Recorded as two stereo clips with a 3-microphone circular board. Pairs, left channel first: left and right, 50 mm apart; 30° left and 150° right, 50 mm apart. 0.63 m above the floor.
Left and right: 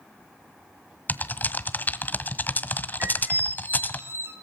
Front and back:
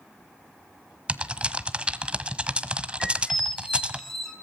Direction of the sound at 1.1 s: 140° left.